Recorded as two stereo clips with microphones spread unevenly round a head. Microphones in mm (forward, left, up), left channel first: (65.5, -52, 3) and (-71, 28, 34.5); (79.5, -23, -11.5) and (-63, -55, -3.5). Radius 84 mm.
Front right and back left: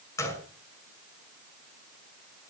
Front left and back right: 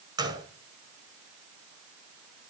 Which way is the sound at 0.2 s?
105° right.